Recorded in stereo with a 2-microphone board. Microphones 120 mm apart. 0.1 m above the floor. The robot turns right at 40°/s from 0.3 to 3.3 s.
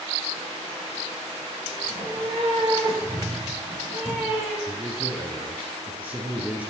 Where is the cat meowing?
70° right, 3.5 m; by 4.6 s 15° right, 3.5 m.